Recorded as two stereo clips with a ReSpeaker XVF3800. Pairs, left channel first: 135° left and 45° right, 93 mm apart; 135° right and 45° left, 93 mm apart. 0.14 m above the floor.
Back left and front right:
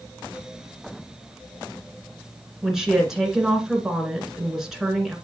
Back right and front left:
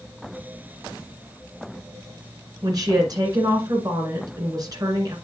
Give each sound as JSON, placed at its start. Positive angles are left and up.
{"t": 2.6, "sound": "a woman speaking", "azimuth_deg": 40, "distance_m": 2.0}